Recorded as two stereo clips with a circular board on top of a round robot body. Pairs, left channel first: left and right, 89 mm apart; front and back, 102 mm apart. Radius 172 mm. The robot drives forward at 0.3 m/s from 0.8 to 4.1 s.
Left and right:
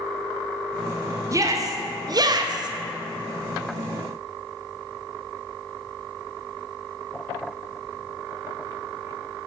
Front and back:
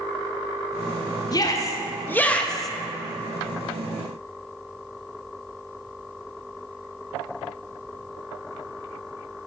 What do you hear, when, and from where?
1.3 s a shout: 45° right, 0.7 m; by 2.7 s 90° right, 0.6 m